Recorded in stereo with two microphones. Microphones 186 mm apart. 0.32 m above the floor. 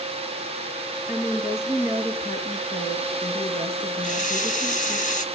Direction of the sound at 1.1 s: 35° left (ahead or behind).